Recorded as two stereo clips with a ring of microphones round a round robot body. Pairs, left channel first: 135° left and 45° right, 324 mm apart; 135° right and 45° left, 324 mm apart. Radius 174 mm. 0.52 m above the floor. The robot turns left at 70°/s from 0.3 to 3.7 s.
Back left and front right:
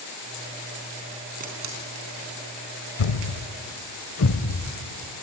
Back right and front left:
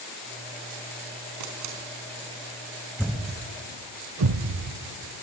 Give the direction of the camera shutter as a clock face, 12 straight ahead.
11 o'clock.